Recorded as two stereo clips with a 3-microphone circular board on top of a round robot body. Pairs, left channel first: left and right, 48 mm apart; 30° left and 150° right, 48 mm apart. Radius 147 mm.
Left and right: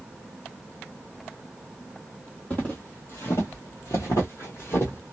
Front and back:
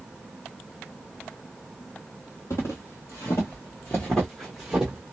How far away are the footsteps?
About 1.0 m.